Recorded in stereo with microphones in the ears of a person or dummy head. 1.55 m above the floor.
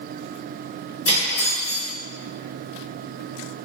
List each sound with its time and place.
1.1 s cutlery clinking: 60° left (ahead or behind), 1.7 m